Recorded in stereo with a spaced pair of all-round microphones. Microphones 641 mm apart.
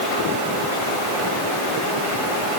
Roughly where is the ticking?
No ticking in this recording.